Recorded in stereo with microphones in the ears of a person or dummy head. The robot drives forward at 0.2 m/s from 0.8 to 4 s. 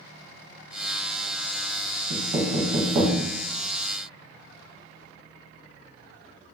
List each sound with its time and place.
2.1 s knocking: 35° right (ahead or behind), 0.8 m; by 3.2 s 30° right (ahead or behind), 1.0 m